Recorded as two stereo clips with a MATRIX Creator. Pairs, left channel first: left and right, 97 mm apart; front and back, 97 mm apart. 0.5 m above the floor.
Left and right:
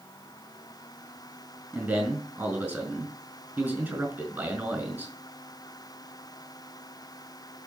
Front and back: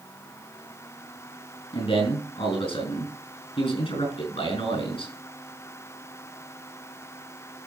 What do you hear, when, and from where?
1.7 s a man speaking: 15° right, 5 m